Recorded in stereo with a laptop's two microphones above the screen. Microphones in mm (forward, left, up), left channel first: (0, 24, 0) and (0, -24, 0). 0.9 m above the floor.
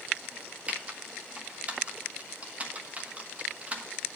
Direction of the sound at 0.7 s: 30° right (ahead or behind).